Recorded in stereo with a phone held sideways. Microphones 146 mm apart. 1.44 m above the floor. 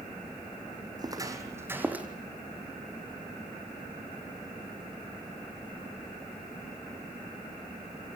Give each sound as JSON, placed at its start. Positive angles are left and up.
{"t": 1.0, "sound": "footsteps", "side_deg": -25, "distance_m": 3.5}